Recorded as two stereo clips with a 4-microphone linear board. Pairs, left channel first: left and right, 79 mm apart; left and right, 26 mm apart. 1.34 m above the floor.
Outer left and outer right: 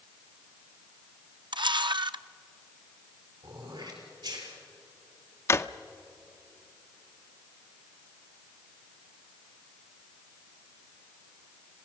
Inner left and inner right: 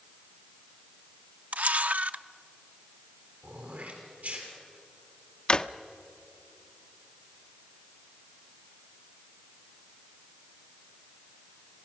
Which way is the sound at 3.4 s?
65° right (ahead or behind).